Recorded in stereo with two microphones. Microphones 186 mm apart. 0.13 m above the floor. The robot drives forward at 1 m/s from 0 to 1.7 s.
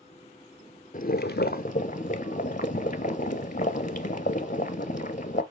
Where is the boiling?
50° left (ahead or behind), 0.6 m; by 5.4 s 45° left (ahead or behind), 0.7 m.